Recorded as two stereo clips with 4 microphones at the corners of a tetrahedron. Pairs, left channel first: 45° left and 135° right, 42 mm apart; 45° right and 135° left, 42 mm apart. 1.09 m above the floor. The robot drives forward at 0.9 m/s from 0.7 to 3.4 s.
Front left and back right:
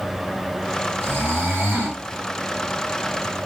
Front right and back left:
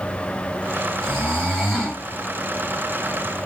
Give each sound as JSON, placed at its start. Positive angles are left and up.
{"t": 1.0, "sound": "snoring", "azimuth_deg": -105, "distance_m": 5.0}